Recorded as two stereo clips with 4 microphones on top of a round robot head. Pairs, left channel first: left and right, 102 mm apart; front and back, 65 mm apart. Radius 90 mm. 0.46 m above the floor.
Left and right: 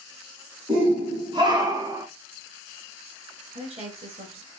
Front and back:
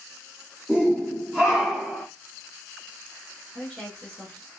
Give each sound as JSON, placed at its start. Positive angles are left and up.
{"t": 0.7, "sound": "a shout", "azimuth_deg": -100, "distance_m": 2.0}
{"t": 3.5, "sound": "a woman speaking", "azimuth_deg": -85, "distance_m": 2.5}